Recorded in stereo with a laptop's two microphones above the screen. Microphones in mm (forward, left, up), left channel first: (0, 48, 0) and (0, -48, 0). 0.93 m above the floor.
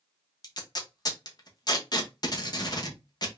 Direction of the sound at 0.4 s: 45° left (ahead or behind).